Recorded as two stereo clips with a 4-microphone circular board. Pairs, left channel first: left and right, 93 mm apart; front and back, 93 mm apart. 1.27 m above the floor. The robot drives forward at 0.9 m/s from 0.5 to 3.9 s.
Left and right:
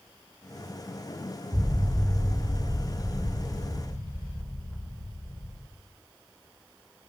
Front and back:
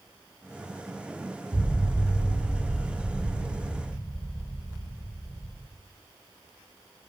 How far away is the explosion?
About 4.5 m.